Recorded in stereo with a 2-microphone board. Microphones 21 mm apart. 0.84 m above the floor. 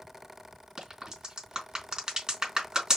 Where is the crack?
35° right (ahead or behind), 3 m.